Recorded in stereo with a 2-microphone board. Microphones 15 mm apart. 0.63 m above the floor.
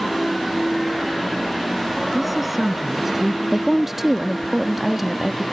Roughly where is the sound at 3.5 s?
Centre.